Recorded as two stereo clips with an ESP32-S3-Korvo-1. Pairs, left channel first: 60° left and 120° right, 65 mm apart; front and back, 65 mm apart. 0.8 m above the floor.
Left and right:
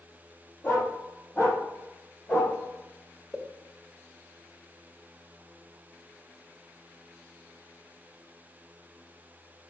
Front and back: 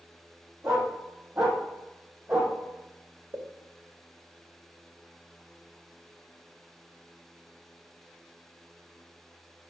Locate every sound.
0.6 s a dog barking: 120° left, 5 m; by 2.5 s 110° left, 6 m
3.3 s a pop: 155° left, 1.4 m